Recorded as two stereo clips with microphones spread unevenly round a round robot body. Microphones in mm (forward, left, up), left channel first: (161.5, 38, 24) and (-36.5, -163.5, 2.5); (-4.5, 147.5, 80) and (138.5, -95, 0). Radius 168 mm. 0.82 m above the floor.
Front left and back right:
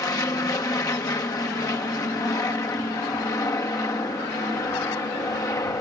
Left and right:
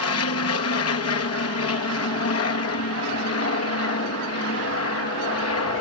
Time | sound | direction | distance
0.0 | an aircraft | 120° left | ?